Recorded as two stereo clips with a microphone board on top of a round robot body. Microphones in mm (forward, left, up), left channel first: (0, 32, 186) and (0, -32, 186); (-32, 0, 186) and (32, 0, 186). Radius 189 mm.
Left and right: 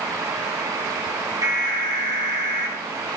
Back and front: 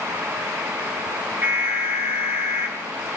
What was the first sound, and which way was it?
An alarm, 60° right.